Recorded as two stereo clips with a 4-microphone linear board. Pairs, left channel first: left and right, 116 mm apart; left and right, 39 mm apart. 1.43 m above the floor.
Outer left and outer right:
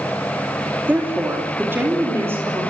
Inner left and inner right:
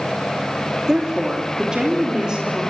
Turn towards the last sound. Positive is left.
turn(degrees=-20)  # may be behind; listen again after turning